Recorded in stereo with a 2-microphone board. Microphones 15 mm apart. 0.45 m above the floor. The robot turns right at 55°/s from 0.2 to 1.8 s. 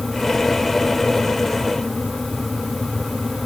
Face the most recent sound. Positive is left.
No sound to turn to.